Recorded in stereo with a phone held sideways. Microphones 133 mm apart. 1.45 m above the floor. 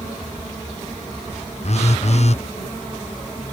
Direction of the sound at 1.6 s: 55° left (ahead or behind).